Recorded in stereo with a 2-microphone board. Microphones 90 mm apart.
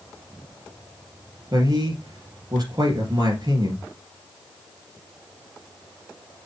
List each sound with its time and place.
1.5 s a man speaking: 45° right (ahead or behind), 3 m